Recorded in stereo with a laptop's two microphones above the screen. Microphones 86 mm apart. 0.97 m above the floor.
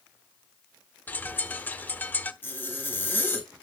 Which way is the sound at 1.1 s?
20° left (ahead or behind).